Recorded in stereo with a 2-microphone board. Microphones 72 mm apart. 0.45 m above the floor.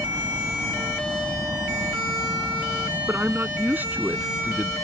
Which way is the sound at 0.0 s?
65° right (ahead or behind).